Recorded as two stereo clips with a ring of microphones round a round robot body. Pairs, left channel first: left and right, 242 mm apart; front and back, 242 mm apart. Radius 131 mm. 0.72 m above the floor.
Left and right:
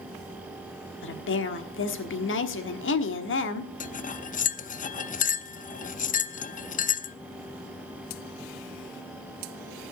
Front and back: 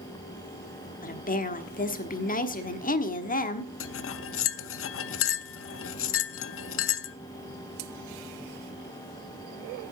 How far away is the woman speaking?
About 1.3 m.